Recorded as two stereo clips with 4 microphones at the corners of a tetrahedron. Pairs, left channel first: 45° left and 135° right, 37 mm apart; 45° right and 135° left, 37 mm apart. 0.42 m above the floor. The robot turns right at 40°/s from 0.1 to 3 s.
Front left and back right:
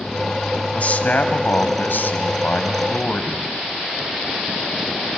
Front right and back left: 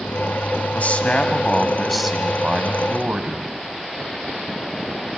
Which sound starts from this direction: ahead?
A man speaking, at 0.7 s.